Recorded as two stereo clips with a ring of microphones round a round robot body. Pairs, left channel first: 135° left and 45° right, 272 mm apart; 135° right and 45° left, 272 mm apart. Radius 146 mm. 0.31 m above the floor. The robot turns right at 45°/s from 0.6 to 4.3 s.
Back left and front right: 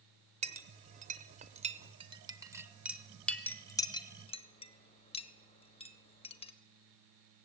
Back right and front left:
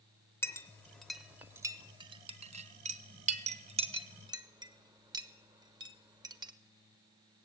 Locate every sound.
0.4 s a clink: 65° right, 0.7 m; by 6.5 s 100° left, 0.7 m